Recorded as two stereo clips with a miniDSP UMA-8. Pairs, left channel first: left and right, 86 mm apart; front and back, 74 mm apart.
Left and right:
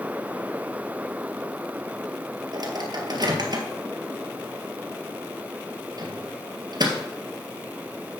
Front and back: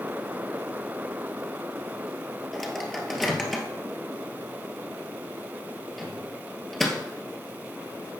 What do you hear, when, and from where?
2.5 s a microwave: 85° right, 1.8 m